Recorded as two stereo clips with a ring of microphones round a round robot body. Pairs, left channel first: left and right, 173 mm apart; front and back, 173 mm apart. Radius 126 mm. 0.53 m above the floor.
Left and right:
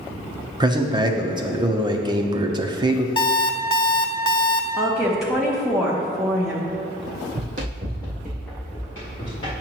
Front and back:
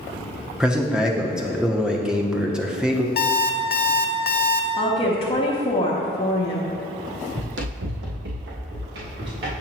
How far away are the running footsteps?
About 1.2 m.